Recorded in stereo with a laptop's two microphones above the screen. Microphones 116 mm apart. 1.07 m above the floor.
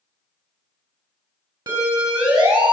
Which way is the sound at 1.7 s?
40° right (ahead or behind).